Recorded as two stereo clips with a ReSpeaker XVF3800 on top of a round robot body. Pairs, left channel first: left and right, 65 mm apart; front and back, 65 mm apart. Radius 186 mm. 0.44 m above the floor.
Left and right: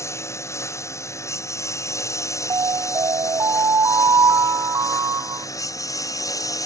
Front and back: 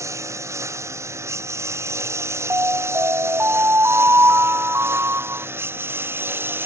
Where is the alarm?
125° right.